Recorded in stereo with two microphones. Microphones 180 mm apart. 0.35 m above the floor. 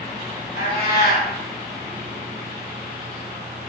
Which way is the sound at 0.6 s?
65° left (ahead or behind).